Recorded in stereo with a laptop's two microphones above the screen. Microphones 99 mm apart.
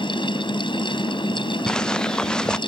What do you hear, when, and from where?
0.0 s a fan: 55° left (ahead or behind)
1.7 s footsteps: 10° left (ahead or behind)